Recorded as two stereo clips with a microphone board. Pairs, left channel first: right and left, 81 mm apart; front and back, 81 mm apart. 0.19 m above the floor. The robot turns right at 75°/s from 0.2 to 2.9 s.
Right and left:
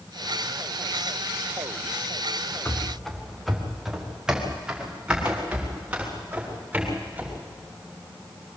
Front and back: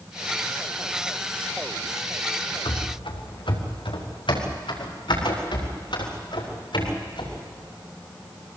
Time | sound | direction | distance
2.6 | running footsteps | 25° right | 3 m